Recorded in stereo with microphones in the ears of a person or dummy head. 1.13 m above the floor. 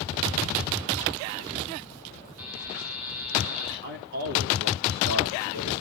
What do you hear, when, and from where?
2.4 s a buzzer: 75° right (ahead or behind), 6.5 m
3.8 s a man speaking: 55° right (ahead or behind), 3.5 m